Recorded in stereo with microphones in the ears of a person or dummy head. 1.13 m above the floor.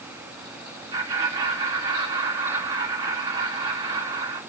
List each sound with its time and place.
0.9 s laughter: 35° right (ahead or behind), 1.7 m